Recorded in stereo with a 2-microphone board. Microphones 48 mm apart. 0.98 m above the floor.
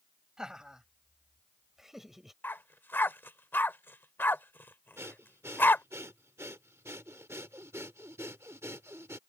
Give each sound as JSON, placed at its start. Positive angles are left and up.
{"t": 0.4, "sound": "laughter", "side_deg": -10}
{"t": 2.4, "sound": "a dog barking", "side_deg": 45}
{"t": 5.0, "sound": "breathing", "side_deg": -70}